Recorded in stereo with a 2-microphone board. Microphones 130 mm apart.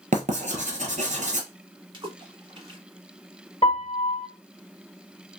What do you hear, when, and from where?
0.1 s writing: 75° right (ahead or behind), 1.0 m
1.9 s a splash: 40° right (ahead or behind), 1.0 m
3.6 s a piano: 50° left (ahead or behind), 1.3 m